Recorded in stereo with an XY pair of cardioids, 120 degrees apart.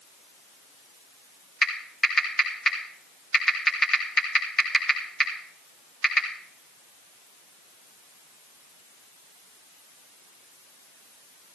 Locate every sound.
1.6 s typing on a keyboard: 20° left, 3.5 m